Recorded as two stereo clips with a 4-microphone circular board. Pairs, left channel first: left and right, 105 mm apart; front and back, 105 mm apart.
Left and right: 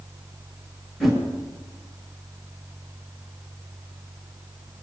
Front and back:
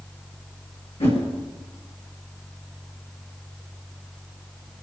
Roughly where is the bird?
No bird in this recording.